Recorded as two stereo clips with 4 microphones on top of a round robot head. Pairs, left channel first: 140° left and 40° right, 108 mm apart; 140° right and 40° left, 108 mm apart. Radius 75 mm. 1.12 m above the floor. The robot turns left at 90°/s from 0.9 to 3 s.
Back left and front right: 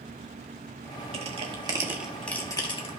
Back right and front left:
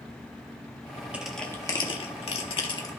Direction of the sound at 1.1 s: 40° right.